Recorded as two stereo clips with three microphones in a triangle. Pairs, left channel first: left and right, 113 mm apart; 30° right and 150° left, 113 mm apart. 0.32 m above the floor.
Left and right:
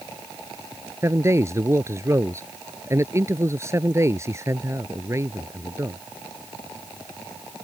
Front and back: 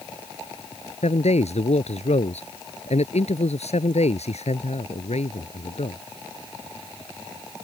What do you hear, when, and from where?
1.0 s a man speaking: 25° right